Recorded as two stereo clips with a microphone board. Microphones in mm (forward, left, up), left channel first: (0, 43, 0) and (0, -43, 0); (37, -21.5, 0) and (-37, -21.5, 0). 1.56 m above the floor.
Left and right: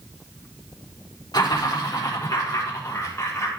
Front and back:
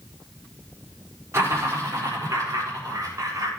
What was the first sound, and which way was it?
Laughter, 130° left.